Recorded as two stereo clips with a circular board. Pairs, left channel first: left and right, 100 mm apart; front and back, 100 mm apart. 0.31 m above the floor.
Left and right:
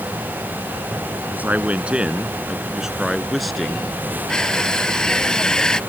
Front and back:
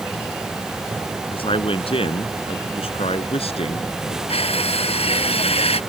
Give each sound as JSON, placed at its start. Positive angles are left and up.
{"t": 1.3, "sound": "a man speaking", "azimuth_deg": -20}
{"t": 4.3, "sound": "crushing", "azimuth_deg": 5}